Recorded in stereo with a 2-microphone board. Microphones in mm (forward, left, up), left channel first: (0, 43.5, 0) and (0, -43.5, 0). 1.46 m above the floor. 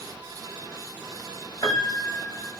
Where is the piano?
30° left (ahead or behind), 1.6 m.